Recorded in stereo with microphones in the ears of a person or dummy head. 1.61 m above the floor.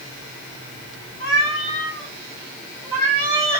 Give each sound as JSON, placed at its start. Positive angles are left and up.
{"t": 1.2, "sound": "a cat meowing", "side_deg": 25, "distance_m": 1.0}